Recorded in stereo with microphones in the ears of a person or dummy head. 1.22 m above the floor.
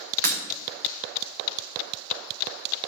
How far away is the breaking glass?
About 3 m.